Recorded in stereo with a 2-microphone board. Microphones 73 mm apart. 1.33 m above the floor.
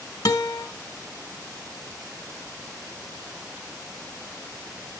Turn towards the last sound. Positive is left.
turn(degrees=65)  # may be behind; listen again after turning